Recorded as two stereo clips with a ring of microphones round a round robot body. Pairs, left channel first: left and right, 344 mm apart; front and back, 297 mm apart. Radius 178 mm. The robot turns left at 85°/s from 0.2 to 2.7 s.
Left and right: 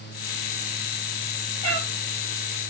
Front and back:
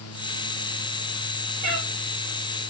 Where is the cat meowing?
120° left, 6.5 m; by 1.9 s 100° left, 6.5 m.